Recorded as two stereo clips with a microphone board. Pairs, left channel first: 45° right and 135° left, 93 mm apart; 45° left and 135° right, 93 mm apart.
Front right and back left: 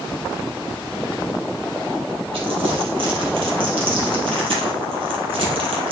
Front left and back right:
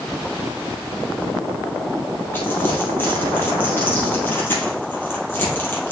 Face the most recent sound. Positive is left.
turn(degrees=115)